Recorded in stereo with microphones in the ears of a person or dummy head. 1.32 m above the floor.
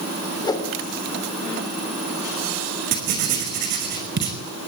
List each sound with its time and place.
0.4 s a whoosh: 25° left (ahead or behind), 2.5 m
2.9 s writing: 50° right (ahead or behind), 5 m